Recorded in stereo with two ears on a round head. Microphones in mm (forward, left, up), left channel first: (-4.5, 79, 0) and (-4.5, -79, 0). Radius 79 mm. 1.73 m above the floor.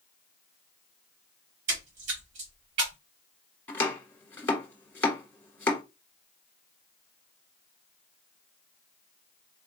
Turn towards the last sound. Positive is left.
turn(degrees=15)  # may be behind; listen again after turning